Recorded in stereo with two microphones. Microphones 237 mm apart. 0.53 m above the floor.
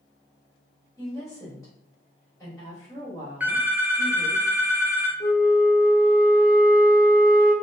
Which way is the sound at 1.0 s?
15° left (ahead or behind).